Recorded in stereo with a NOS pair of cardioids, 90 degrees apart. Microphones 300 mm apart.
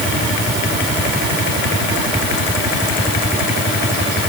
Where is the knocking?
No knocking in this recording.